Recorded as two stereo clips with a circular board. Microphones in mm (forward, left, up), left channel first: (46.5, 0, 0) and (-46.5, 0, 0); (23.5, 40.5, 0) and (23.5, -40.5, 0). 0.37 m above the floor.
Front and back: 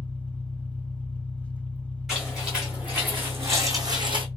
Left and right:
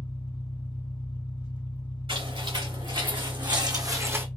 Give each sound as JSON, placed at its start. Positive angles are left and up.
{"t": 0.0, "sound": "an engine running", "azimuth_deg": 75, "distance_m": 1.3}
{"t": 2.1, "sound": "footsteps", "azimuth_deg": -95, "distance_m": 3.0}